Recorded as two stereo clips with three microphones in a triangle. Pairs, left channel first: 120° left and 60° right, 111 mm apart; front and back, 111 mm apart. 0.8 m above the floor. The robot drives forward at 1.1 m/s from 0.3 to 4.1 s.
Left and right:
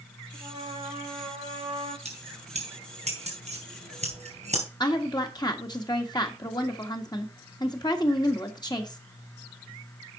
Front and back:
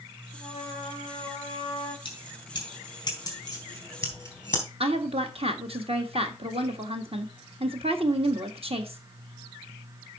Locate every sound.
0.3 s a trumpet: 30° right, 4 m; by 1.9 s 50° right, 2.5 m
2.0 s keys jangling: 45° right, 5 m; by 4.6 s 70° right, 4 m
4.8 s a woman speaking: 165° left, 1.5 m